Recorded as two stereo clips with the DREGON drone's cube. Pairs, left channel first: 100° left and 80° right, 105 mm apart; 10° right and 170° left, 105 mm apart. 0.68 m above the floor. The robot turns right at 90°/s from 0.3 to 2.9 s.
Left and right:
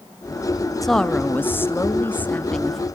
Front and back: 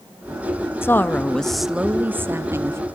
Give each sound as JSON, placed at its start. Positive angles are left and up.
{"t": 0.8, "sound": "a woman speaking", "azimuth_deg": 10, "distance_m": 0.6}